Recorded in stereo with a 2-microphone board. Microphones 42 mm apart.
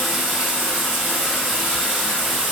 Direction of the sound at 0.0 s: 5° right (ahead or behind).